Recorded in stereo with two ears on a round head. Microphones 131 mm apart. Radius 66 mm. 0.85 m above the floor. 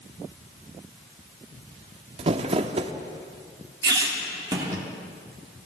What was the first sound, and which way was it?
Crumpling, 40° right (ahead or behind).